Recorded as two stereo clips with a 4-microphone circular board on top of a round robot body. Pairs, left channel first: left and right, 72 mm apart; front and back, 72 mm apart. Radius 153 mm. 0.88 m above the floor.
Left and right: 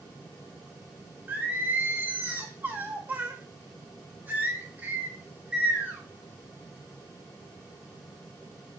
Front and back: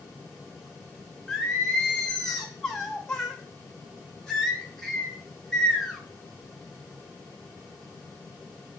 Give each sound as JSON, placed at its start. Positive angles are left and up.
{"t": 1.3, "sound": "singing", "azimuth_deg": -70, "distance_m": 0.9}